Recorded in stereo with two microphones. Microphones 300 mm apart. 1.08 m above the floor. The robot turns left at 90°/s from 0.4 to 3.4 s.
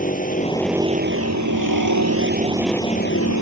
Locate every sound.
0.0 s a vehicle: 25° left; by 3.4 s 115° left